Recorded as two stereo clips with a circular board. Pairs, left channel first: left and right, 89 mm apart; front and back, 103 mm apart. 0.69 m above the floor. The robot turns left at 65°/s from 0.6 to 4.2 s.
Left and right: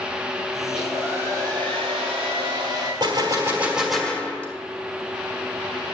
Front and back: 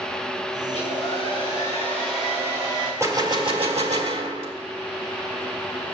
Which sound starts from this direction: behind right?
A gunshot, at 3.0 s.